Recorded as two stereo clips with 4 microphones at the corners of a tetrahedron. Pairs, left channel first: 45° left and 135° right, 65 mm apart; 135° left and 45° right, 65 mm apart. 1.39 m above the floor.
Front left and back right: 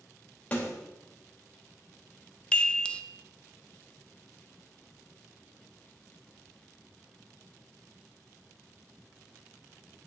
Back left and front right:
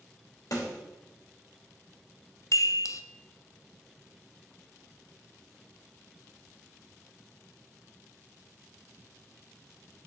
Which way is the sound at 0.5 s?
110° left.